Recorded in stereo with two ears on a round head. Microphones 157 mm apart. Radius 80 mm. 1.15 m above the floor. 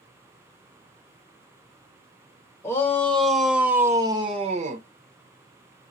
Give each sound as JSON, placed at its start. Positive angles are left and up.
{"t": 2.6, "sound": "a shout", "side_deg": 15, "distance_m": 1.3}